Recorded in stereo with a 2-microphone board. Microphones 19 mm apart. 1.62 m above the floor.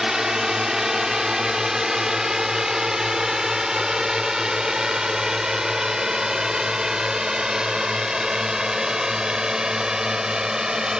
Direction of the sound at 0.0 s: 25° right (ahead or behind).